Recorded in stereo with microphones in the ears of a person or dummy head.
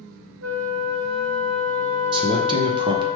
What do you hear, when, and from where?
0.4 s a flute: 70° right (ahead or behind), 0.5 m
2.1 s a man speaking: 20° right (ahead or behind), 0.6 m